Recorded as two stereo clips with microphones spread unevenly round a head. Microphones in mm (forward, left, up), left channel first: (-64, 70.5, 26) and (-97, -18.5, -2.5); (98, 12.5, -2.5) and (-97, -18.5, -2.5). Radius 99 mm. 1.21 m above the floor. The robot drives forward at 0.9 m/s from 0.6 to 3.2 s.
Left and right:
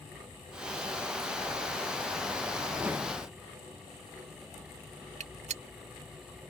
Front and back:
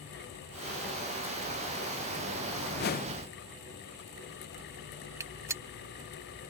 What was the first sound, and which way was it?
A whoosh, 30° right.